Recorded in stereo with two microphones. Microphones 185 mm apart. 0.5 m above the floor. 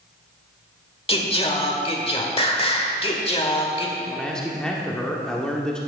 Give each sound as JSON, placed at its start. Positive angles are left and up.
{"t": 1.1, "sound": "singing", "side_deg": 30, "distance_m": 1.1}
{"t": 4.1, "sound": "a man speaking", "side_deg": 5, "distance_m": 1.0}